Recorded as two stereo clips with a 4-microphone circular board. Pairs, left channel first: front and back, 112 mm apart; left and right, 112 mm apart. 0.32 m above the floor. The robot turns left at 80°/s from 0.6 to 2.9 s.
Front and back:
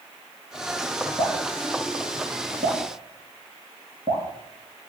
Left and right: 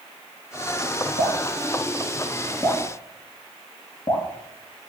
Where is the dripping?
80° right, 2.5 m; by 4.3 s 140° left, 2.5 m.